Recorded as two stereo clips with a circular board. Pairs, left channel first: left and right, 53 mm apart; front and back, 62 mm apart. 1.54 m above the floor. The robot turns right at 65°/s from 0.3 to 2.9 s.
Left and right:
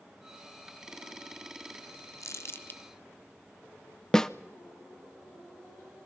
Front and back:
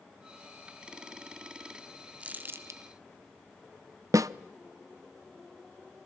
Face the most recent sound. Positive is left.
turn(degrees=165)